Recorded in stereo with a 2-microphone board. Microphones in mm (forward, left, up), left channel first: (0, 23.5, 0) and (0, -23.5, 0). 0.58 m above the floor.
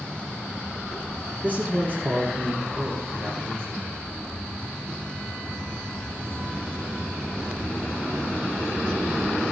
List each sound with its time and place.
1.4 s a man speaking: 30° right (ahead or behind), 1.4 m; by 3.9 s 55° right (ahead or behind), 2.5 m